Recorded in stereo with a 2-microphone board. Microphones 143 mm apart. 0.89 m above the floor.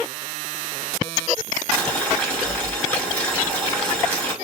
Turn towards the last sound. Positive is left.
turn(degrees=10)  # may be behind; listen again after turning